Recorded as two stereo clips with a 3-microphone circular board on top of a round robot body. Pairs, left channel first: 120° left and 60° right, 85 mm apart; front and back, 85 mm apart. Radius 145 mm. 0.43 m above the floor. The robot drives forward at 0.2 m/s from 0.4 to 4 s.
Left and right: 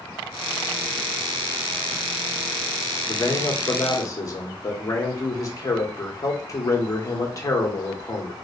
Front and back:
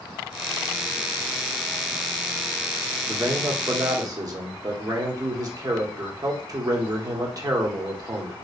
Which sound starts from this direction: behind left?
A man speaking, at 3.1 s.